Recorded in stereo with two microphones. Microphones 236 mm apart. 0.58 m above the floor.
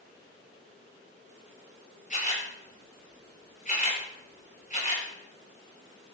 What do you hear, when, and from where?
2.1 s a camera shutter: 35° left (ahead or behind), 9.5 m